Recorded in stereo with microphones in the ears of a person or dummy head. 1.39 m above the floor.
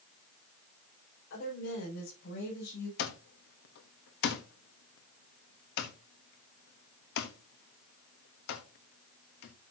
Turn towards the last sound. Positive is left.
turn(degrees=60)  # may be behind; listen again after turning